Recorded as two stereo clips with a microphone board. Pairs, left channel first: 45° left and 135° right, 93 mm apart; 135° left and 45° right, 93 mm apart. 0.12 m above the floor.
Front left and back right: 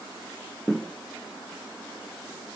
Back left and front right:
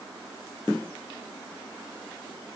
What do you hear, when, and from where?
Only background noise.